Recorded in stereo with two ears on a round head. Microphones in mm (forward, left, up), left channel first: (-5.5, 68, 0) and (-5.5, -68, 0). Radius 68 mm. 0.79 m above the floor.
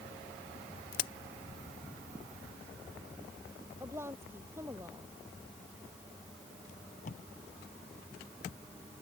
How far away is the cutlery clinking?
No cutlery clinking in this recording.